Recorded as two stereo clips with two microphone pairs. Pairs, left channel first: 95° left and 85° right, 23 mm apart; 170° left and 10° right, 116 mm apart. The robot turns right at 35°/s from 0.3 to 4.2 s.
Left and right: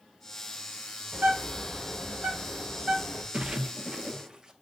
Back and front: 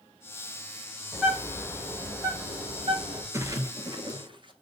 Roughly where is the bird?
Behind right.